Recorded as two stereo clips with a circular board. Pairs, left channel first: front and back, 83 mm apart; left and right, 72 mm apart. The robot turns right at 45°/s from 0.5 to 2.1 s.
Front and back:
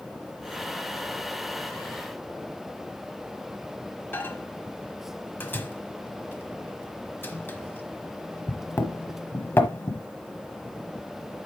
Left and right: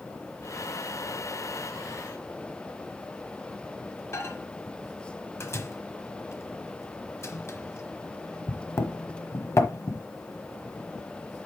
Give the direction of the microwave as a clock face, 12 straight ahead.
10 o'clock.